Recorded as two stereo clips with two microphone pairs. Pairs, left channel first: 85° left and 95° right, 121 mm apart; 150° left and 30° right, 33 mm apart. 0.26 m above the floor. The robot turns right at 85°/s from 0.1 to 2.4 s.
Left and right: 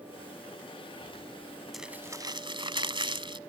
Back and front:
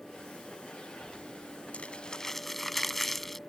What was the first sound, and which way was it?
Crumpling, 175° left.